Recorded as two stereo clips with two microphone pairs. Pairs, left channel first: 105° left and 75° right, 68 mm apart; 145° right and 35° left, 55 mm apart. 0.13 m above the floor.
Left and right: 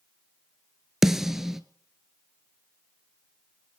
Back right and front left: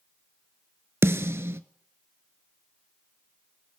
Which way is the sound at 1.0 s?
5° left.